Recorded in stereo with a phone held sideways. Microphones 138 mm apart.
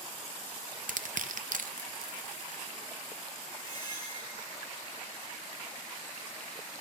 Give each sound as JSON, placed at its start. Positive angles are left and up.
{"t": 0.9, "sound": "crushing", "side_deg": -70, "distance_m": 0.5}
{"t": 3.6, "sound": "a squeak", "side_deg": 30, "distance_m": 3.5}